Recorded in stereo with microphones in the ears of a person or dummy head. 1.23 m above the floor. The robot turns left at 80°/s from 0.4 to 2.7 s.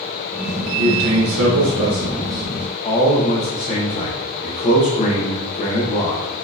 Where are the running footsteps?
I don't hear running footsteps.